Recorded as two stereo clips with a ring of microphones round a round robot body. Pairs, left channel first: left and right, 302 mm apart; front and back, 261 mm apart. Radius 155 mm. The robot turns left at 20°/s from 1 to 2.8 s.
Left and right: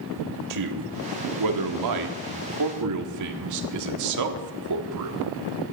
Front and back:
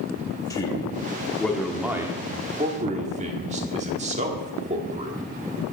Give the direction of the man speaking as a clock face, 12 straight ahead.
3 o'clock.